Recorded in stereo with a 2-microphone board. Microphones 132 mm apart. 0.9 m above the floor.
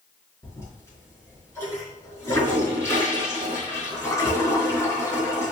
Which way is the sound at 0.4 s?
20° left (ahead or behind).